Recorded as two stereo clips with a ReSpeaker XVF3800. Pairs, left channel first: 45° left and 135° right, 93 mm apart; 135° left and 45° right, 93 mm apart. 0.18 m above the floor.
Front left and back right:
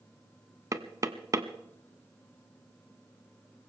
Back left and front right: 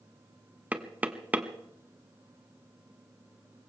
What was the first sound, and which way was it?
Knocking, 110° right.